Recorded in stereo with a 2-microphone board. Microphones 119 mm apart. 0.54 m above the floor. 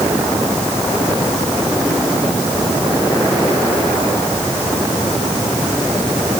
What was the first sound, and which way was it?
Only background noise.